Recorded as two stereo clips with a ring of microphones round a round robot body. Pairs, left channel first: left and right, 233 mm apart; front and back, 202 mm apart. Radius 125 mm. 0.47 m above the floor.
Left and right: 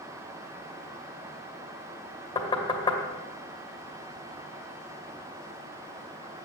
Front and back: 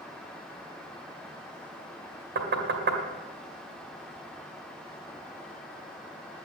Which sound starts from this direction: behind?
Knocking, at 2.4 s.